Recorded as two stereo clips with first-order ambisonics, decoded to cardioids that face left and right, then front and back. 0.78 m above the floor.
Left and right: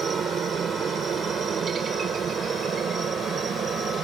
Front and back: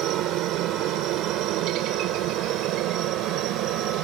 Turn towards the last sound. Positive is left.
turn(degrees=-150)